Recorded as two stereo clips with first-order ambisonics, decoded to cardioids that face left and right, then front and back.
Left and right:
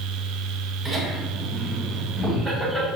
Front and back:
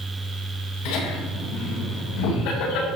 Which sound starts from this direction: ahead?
Laughter, at 0.8 s.